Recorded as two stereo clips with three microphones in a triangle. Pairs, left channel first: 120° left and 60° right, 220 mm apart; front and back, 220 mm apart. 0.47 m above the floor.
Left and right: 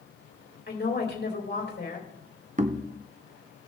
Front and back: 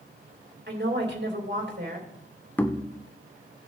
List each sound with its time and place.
0.7 s a woman speaking: 155° left, 2.5 m
2.6 s knocking: 75° right, 0.7 m